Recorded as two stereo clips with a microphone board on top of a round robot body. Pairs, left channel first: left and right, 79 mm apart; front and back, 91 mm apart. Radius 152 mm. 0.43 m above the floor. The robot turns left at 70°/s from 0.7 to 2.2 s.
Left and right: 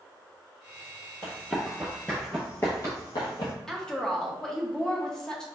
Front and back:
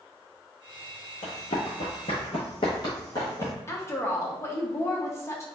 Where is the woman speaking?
15° left, 0.8 m.